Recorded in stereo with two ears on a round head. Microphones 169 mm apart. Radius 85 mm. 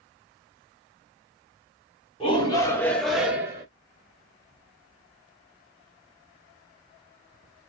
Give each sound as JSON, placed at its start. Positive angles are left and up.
{"t": 2.2, "sound": "a shout", "side_deg": 30, "distance_m": 1.3}